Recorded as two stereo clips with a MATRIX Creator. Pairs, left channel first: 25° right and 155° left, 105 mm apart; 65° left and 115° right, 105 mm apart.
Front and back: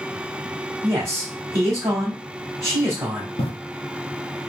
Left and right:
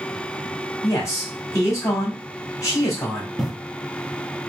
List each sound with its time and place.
0.8 s a man speaking: 110° left, 1.3 m
3.4 s breathing: 25° right, 0.5 m